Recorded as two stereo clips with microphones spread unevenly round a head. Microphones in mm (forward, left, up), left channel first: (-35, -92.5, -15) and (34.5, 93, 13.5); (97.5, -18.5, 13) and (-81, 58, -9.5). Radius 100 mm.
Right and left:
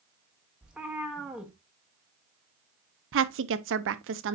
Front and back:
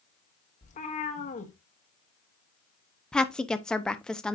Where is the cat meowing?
5° right, 1.2 m.